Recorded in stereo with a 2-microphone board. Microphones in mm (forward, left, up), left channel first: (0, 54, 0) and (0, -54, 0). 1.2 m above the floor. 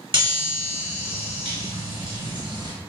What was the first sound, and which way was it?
A chime, 50° right (ahead or behind).